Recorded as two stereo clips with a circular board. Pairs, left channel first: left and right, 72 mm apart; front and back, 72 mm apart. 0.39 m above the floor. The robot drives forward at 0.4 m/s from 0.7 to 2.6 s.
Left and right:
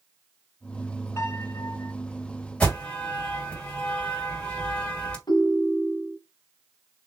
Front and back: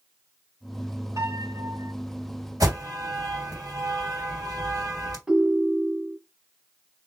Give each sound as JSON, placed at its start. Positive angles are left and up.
{"t": 1.2, "sound": "a piano", "azimuth_deg": 140, "distance_m": 2.5}
{"t": 2.6, "sound": "an alarm", "azimuth_deg": 160, "distance_m": 3.0}
{"t": 5.3, "sound": "a ringtone", "azimuth_deg": 100, "distance_m": 1.2}